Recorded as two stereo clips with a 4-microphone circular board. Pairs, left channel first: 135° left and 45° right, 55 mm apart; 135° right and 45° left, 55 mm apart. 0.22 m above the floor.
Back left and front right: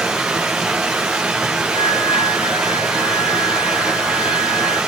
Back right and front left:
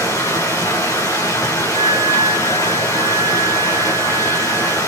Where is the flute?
165° left, 8.5 m.